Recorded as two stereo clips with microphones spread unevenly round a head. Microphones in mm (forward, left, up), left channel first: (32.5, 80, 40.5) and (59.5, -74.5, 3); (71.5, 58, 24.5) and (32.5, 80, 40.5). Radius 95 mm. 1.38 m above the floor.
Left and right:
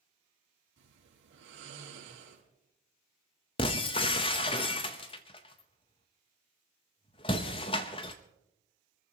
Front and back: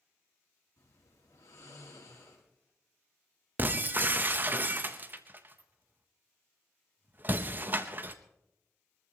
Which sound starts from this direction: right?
Snoring, at 0.8 s.